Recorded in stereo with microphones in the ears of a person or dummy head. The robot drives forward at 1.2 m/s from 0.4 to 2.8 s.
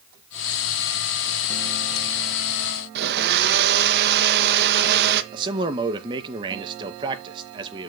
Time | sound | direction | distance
3.0 | a blender | 55° right (ahead or behind) | 1.4 m
5.3 | a man speaking | 20° right (ahead or behind) | 2 m